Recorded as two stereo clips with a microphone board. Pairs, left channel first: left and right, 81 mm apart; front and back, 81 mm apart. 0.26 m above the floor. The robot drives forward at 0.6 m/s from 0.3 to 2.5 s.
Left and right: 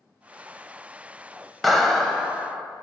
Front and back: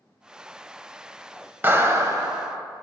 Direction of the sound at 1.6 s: 175° left.